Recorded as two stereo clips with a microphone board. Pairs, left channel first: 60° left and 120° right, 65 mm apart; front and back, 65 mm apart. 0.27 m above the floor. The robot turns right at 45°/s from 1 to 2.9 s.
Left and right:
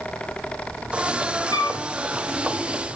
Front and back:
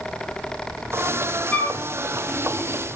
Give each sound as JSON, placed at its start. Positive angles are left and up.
{"t": 1.5, "sound": "a flute", "azimuth_deg": 65, "distance_m": 3.0}